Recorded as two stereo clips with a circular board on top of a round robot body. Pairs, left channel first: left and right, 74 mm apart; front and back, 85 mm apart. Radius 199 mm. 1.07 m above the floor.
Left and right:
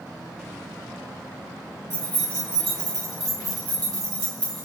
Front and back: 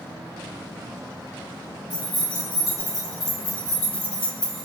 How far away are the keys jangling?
About 1.9 m.